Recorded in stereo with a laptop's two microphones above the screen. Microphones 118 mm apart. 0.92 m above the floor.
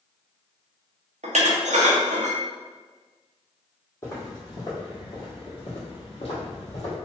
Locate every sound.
1.2 s dishes clattering: 80° right, 0.5 m
4.0 s footsteps: 25° left (ahead or behind), 1.7 m; by 7.0 s 60° left (ahead or behind), 1.7 m